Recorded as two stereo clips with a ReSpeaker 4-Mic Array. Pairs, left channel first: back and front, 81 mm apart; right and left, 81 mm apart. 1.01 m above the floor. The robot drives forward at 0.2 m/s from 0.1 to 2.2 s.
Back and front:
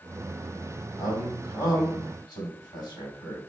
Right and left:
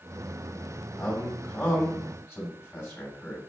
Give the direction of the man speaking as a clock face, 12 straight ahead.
5 o'clock.